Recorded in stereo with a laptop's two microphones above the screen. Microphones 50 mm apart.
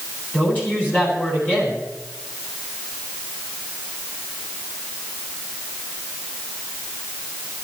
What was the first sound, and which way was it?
A woman speaking, 35° left (ahead or behind).